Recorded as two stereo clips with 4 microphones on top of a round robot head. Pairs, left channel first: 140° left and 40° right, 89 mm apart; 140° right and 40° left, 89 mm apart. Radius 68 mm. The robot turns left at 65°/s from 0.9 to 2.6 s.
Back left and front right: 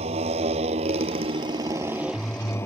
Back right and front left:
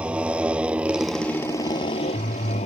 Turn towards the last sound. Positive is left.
turn(degrees=-150)